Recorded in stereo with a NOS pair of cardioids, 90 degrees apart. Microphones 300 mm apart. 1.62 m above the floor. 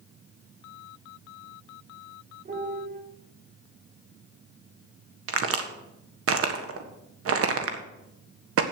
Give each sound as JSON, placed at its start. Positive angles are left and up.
{"t": 2.5, "sound": "a piano", "azimuth_deg": -30, "distance_m": 4.5}
{"t": 5.3, "sound": "a crack", "azimuth_deg": -50, "distance_m": 1.6}